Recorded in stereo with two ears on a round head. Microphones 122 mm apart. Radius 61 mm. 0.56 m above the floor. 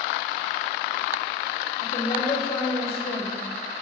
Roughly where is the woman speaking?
Left.